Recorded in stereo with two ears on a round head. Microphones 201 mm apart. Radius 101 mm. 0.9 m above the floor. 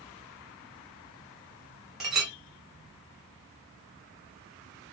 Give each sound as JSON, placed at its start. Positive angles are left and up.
{"t": 2.0, "sound": "a clink", "side_deg": 0, "distance_m": 0.9}